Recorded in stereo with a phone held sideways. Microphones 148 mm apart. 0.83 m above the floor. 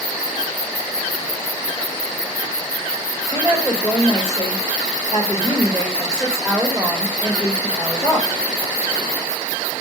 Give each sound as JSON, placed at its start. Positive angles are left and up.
{"t": 3.3, "sound": "a woman speaking", "side_deg": 30, "distance_m": 3.0}